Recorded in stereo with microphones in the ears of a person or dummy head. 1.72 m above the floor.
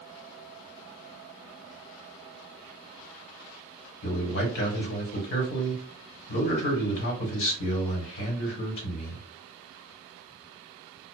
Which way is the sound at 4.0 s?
60° left (ahead or behind).